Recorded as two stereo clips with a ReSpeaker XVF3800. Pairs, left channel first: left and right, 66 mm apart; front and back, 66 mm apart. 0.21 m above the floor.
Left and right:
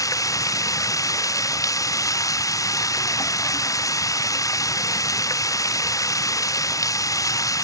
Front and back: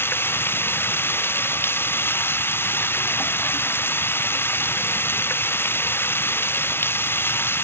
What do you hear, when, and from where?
0.0 s running water: 55° left